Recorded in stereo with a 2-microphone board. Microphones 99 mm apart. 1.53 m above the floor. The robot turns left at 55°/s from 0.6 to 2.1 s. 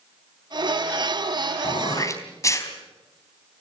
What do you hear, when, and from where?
1.6 s throat clearing: 55° left (ahead or behind), 3.5 m; by 2.7 s 30° left (ahead or behind), 3.5 m